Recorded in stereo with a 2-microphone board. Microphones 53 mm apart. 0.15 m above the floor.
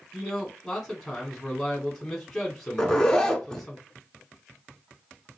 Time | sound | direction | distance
0.1 | a man speaking | 5° left (ahead or behind) | 1.2 m
2.8 | a zipper | 10° left (ahead or behind) | 0.9 m